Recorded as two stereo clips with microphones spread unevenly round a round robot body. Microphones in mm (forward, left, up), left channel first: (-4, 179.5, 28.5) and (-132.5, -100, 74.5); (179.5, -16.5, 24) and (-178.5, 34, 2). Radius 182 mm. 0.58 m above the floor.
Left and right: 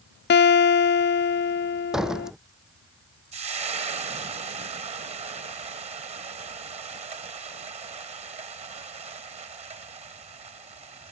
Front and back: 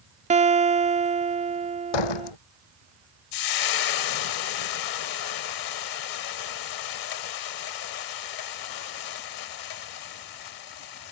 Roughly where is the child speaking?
I don't hear a child speaking.